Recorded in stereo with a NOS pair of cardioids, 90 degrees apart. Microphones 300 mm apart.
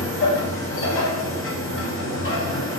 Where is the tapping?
I don't hear tapping.